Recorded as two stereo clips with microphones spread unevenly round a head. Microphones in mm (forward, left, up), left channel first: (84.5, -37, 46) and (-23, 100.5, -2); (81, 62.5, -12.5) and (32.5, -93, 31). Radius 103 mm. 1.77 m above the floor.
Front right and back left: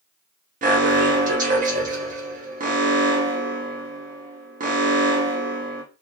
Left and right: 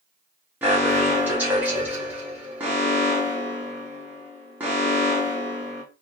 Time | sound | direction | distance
0.6 | an alarm | 175° right | 0.7 m